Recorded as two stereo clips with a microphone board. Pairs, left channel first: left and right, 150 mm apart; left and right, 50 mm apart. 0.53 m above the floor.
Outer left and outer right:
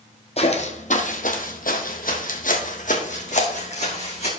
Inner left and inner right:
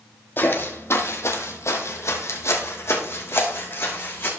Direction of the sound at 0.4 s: 45° left (ahead or behind).